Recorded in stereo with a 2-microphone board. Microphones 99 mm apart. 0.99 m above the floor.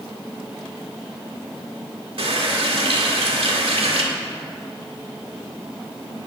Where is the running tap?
70° right (ahead or behind), 1.9 m.